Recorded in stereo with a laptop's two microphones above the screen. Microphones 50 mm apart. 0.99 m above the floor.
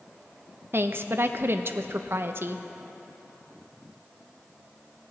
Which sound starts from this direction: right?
A woman speaking, at 0.7 s.